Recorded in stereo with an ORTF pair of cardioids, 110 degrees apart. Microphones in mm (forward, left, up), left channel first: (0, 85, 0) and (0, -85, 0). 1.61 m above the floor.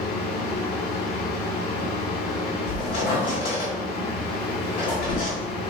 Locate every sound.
0.0 s a fan: 35° left, 1.4 m
2.7 s a squeak: 60° left, 1.9 m